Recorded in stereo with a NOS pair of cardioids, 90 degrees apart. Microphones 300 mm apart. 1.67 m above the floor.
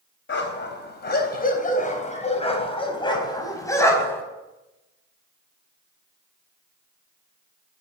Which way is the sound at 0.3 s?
40° left.